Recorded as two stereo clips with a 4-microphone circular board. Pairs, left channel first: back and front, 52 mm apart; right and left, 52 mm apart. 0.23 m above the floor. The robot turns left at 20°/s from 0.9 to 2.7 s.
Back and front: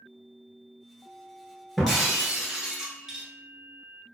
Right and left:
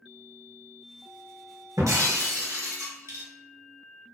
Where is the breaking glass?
90° left, 0.9 m; by 3.2 s 75° left, 0.9 m.